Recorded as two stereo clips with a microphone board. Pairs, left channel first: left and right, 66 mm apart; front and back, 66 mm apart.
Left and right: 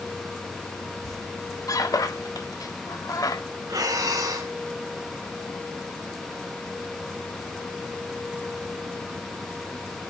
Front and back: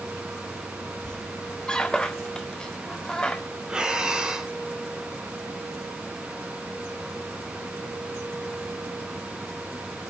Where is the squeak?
75° left, 1.4 m.